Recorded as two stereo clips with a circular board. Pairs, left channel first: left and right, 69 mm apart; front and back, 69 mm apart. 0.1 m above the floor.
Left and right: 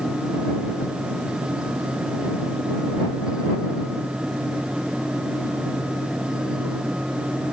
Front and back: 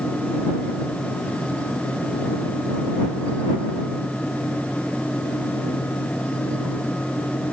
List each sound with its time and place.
Only background noise.